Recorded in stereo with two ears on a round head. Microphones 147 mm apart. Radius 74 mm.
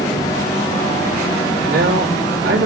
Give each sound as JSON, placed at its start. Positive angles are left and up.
{"t": 1.7, "sound": "a man speaking", "side_deg": -70, "distance_m": 3.0}